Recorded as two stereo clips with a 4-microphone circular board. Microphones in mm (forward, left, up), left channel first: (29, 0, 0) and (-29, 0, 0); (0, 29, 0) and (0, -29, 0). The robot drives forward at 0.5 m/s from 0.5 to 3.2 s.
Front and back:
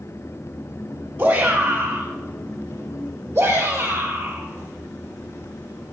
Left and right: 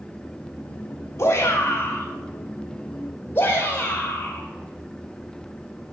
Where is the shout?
125° left, 1.8 m; by 6.0 s 145° left, 2.5 m.